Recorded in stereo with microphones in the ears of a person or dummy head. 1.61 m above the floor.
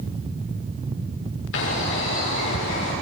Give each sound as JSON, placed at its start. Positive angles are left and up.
{"t": 1.5, "sound": "a bird", "side_deg": 65, "distance_m": 6.5}